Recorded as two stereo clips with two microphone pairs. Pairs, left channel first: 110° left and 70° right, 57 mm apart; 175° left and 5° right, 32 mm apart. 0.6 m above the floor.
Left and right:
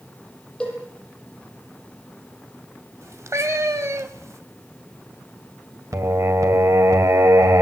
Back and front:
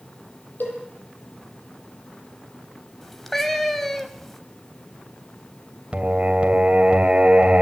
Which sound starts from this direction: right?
A cat meowing, at 3.0 s.